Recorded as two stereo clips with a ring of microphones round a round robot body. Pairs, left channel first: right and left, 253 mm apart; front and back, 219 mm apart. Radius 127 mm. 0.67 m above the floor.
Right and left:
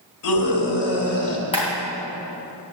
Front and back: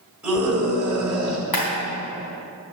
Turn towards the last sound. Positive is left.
turn(degrees=-20)